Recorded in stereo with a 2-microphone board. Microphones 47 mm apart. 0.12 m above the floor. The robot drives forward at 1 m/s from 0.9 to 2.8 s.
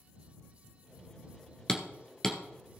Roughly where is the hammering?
Centre.